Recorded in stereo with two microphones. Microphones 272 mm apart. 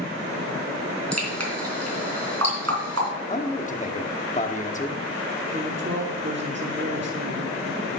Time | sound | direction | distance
1.1 | dripping | 65° right (ahead or behind) | 3 m
3.3 | a man speaking | 25° left (ahead or behind) | 0.9 m
5.5 | a woman speaking | 40° right (ahead or behind) | 1.0 m